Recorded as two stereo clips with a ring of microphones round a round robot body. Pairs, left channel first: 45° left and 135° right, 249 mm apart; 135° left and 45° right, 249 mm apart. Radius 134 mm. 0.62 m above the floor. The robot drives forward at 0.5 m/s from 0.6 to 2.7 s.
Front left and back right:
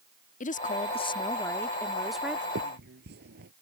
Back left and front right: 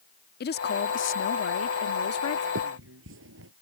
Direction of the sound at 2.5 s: 85° right.